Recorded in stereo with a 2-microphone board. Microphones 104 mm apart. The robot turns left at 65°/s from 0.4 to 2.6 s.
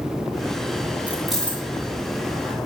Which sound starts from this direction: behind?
Keys jangling, at 1.1 s.